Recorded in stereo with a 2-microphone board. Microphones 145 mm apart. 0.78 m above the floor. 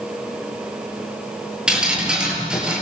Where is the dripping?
5° right (ahead or behind), 8.5 m.